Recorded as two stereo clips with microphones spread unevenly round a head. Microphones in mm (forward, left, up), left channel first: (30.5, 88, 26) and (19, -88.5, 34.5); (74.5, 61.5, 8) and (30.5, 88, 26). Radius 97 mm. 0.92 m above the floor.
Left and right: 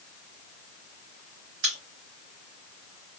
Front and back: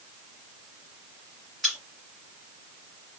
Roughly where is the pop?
Behind right.